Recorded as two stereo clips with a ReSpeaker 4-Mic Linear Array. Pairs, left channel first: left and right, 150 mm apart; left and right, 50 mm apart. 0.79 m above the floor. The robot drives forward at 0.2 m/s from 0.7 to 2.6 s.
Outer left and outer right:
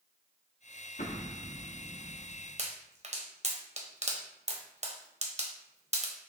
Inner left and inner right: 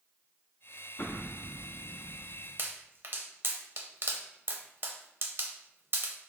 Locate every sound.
1.0 s an explosion: 60° left (ahead or behind), 0.8 m; by 2.5 s 45° left (ahead or behind), 1.0 m
2.6 s a pop: 50° right (ahead or behind), 0.7 m